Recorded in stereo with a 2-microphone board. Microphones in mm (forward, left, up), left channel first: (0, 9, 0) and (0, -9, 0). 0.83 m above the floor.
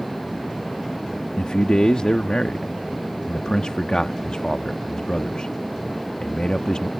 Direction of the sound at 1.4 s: 65° left (ahead or behind).